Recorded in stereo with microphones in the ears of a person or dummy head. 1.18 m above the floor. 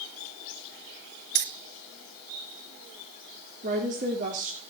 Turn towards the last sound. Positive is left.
turn(degrees=-40)  # may be behind; listen again after turning